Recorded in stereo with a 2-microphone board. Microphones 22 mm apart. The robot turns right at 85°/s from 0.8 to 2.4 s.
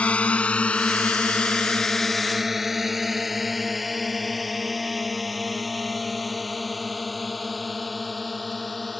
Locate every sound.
0.0 s a drone: 65° left (ahead or behind); by 9.0 s 5° left (ahead or behind)